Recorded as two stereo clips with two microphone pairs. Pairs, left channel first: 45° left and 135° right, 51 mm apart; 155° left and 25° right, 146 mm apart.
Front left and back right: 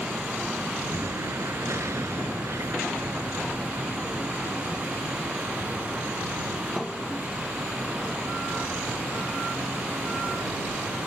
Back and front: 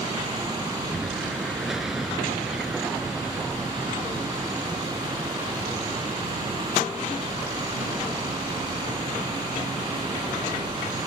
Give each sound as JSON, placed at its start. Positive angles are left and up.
{"t": 0.9, "sound": "an explosion", "azimuth_deg": -115}